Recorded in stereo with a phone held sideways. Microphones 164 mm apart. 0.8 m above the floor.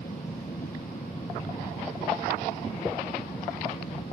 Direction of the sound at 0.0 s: 60° left (ahead or behind).